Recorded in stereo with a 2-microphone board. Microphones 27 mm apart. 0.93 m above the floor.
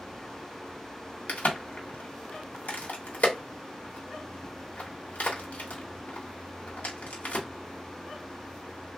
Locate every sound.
1.3 s a crack: 60° left (ahead or behind), 1.1 m